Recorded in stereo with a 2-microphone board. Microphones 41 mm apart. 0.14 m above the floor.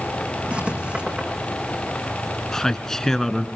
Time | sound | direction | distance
0.5 | writing | 25° right (ahead or behind) | 4.5 m
2.5 | a man speaking | 10° left (ahead or behind) | 1.4 m